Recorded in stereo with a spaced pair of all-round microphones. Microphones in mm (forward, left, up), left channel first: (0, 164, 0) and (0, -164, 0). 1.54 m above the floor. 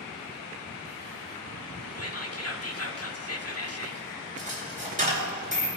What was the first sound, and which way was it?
Whispering, 45° left (ahead or behind).